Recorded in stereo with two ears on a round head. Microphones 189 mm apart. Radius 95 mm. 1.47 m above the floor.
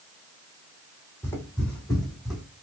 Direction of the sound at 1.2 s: 10° left (ahead or behind).